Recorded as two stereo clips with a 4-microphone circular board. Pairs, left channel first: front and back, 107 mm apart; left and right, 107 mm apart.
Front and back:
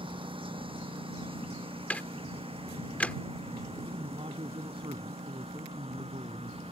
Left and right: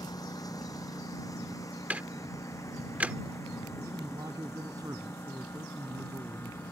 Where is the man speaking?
145° right.